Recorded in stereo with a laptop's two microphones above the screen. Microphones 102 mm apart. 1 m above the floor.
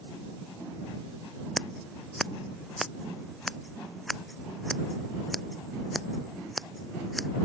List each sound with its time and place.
1.6 s scissors: centre (ahead or behind)